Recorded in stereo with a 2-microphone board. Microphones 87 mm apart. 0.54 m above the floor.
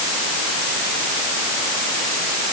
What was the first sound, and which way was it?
Only background noise.